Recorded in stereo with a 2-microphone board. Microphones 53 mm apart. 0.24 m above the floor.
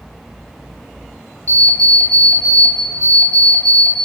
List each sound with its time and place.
1.5 s an alarm clock: 25° left (ahead or behind), 0.9 m